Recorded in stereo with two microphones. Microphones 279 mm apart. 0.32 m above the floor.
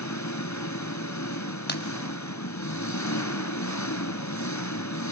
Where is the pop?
35° left (ahead or behind), 1.7 m.